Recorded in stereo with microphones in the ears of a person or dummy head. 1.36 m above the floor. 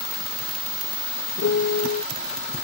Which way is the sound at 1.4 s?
55° left (ahead or behind).